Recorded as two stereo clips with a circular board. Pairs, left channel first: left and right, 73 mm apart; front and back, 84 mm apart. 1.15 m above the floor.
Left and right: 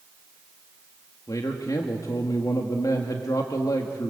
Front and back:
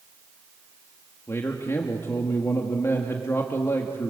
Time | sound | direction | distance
1.3 | a man speaking | 60° left | 1.9 m